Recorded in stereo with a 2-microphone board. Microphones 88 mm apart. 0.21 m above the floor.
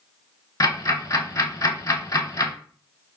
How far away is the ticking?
About 0.6 m.